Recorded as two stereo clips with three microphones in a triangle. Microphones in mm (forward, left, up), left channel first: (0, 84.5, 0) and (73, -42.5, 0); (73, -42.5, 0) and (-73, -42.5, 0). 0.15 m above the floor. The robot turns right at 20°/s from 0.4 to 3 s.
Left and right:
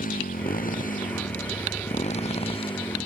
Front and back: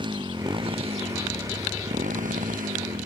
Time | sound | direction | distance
0.0 | a motorcycle | 125° left | ?